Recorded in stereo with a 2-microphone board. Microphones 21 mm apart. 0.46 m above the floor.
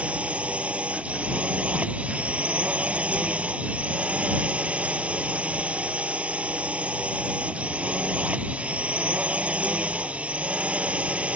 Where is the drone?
80° right.